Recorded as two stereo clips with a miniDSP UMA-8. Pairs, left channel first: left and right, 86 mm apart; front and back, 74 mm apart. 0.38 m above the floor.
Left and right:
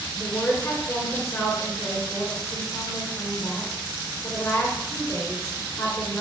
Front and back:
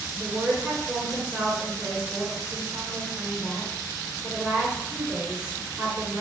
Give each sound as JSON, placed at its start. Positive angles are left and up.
{"t": 0.1, "sound": "a woman speaking", "azimuth_deg": 115, "distance_m": 1.7}